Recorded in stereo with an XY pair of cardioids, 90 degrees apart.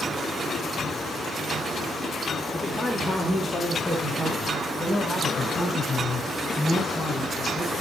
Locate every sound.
2.5 s a man speaking: 20° left, 3.5 m; by 7.7 s 15° left, 11.5 m